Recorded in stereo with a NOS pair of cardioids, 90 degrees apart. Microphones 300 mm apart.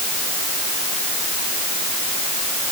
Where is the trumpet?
No trumpet in this recording.